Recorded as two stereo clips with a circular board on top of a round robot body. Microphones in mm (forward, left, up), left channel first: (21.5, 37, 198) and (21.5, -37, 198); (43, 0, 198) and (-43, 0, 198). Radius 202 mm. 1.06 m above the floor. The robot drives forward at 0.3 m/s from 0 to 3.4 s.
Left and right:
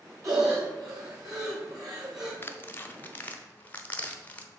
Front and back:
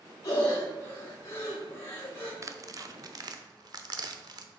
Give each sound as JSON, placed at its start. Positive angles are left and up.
{"t": 0.2, "sound": "breathing", "azimuth_deg": -50, "distance_m": 3.0}
{"t": 2.4, "sound": "tearing paper", "azimuth_deg": 140, "distance_m": 0.8}